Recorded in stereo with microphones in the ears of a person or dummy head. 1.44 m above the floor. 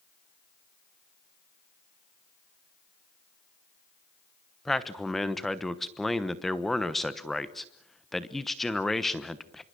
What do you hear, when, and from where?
4.7 s a man speaking: 5° left (ahead or behind), 1.1 m